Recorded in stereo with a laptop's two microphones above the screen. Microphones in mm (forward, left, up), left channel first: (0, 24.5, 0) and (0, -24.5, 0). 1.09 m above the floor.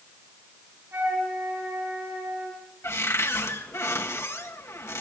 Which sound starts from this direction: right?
A flute, at 0.9 s.